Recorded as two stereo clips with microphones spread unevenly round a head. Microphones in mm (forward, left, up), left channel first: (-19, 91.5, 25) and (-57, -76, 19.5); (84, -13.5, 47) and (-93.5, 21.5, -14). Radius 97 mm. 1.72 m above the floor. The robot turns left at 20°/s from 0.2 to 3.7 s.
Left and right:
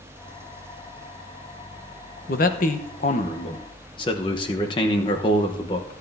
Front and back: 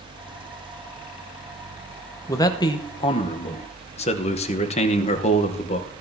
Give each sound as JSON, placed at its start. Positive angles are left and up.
{"t": 2.3, "sound": "a man speaking", "azimuth_deg": 45, "distance_m": 1.0}